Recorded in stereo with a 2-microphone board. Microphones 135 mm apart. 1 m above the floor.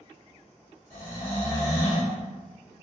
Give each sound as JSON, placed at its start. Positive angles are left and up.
{"t": 0.9, "sound": "snoring", "side_deg": -45, "distance_m": 1.8}